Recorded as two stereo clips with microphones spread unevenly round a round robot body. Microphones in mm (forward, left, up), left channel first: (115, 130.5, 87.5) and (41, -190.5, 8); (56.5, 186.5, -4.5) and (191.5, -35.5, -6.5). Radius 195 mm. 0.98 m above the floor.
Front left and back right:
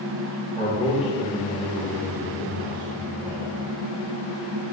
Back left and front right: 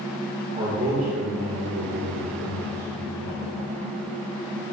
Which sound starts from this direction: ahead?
A man speaking, at 0.6 s.